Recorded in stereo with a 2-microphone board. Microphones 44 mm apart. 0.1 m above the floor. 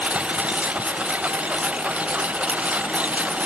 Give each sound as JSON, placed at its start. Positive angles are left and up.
{"t": 0.0, "sound": "a lawn mower", "side_deg": -30}